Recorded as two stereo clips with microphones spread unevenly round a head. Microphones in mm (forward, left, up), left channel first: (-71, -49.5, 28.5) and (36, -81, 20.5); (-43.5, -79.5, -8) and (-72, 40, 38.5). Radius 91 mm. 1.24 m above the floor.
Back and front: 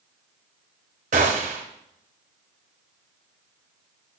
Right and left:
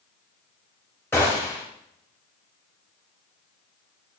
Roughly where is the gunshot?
Ahead.